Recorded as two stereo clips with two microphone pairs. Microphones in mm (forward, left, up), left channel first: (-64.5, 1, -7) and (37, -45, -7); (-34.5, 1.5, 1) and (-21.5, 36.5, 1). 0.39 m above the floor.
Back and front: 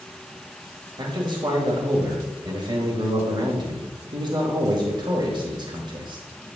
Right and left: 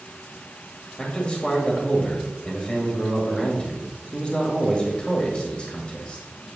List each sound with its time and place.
1.0 s a man speaking: 55° right, 1.6 m